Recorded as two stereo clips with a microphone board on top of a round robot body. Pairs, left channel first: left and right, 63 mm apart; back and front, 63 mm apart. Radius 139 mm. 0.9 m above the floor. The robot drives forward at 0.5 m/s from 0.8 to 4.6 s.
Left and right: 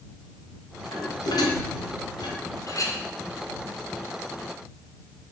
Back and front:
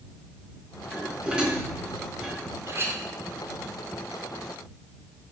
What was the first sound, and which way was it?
Dishes clattering, 70° left.